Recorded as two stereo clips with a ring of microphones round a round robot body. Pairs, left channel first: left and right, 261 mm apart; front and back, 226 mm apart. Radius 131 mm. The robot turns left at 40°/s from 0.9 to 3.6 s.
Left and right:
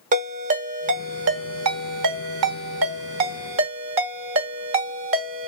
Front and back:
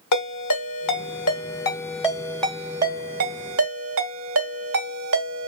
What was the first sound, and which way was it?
A ringtone, 25° right.